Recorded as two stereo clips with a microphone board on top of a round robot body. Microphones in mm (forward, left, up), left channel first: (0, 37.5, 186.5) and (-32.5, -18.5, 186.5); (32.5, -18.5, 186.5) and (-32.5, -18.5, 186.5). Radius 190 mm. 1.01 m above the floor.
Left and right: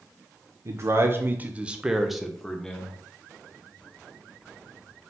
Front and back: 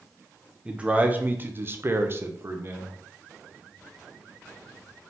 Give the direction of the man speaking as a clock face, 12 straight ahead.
4 o'clock.